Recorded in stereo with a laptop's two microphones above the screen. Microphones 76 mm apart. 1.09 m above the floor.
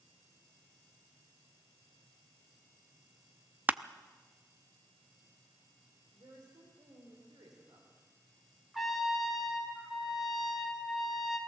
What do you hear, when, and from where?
3.7 s crushing: 25° right (ahead or behind), 0.5 m
6.1 s a woman speaking: 65° right (ahead or behind), 4 m
8.7 s a trumpet: centre (ahead or behind), 2 m